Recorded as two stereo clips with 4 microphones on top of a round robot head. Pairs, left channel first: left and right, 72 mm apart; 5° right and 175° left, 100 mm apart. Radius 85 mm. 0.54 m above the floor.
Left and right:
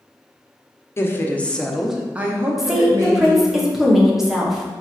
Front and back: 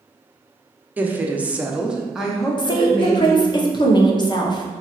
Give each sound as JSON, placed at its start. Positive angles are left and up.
{"t": 1.0, "sound": "a woman speaking", "azimuth_deg": 115, "distance_m": 0.8}
{"t": 2.6, "sound": "a woman speaking", "azimuth_deg": -5, "distance_m": 0.8}